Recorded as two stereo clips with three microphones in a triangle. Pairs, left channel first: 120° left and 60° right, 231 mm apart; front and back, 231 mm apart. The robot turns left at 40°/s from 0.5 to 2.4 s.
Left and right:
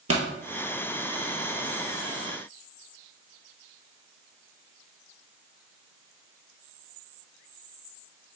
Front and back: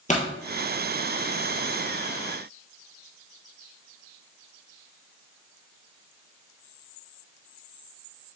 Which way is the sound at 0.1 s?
60° right.